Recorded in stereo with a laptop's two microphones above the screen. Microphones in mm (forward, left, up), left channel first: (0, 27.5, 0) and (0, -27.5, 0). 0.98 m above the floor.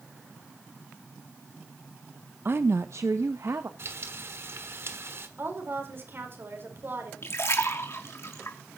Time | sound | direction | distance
2.5 | a woman speaking | 45° right (ahead or behind) | 0.6 m
3.8 | frying | 55° right (ahead or behind) | 1.3 m
5.4 | a woman speaking | 45° right (ahead or behind) | 4.5 m
7.2 | a splash | 60° left (ahead or behind) | 2.5 m